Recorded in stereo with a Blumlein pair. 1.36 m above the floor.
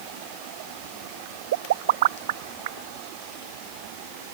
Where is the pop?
55° right.